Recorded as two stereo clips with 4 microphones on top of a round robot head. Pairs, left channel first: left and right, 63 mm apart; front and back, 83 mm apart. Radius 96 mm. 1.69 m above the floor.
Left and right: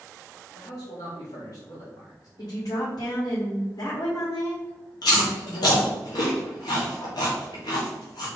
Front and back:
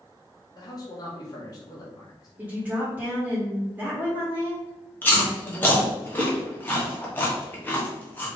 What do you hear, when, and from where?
0.5 s a man speaking: 40° left, 1.3 m
2.4 s a woman speaking: 105° left, 1.8 m
5.0 s chewing: 65° left, 1.3 m